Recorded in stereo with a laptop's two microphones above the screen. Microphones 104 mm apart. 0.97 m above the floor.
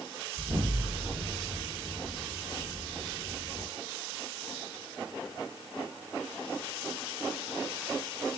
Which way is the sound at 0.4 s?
40° right (ahead or behind).